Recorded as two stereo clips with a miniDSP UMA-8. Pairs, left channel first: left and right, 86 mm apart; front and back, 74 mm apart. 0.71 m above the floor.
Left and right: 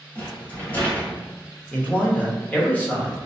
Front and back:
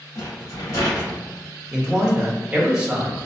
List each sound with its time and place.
0.1 s a rattle: 25° left, 1.4 m
1.7 s a man speaking: 125° left, 0.9 m